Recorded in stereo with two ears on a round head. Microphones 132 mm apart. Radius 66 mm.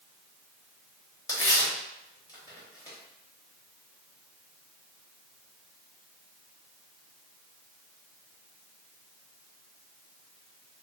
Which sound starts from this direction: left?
Tearing paper, at 1.3 s.